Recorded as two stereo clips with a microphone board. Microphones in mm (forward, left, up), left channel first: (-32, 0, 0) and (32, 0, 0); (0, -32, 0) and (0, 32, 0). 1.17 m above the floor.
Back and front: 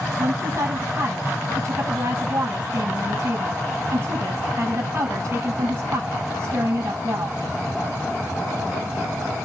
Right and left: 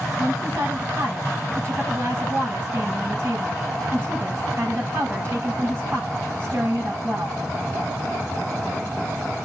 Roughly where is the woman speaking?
Ahead left.